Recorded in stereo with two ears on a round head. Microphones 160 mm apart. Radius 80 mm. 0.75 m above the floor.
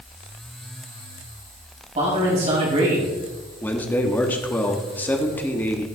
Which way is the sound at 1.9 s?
35° right (ahead or behind).